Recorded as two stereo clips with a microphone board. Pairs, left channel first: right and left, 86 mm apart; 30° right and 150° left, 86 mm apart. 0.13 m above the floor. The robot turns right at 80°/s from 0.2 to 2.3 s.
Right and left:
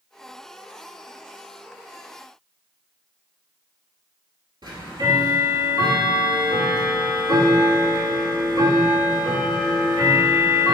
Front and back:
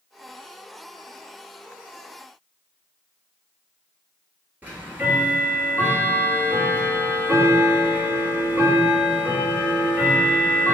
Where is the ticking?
85° left, 0.9 m.